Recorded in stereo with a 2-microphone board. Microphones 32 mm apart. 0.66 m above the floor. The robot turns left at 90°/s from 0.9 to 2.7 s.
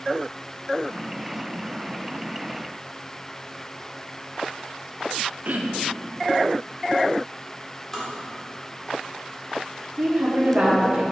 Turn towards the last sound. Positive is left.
turn(degrees=-45)  # may be behind; listen again after turning